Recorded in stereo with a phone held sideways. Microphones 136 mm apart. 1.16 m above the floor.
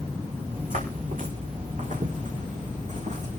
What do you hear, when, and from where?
0.5 s footsteps: 80° right, 6 m; by 3.4 s 60° right (ahead or behind), 5 m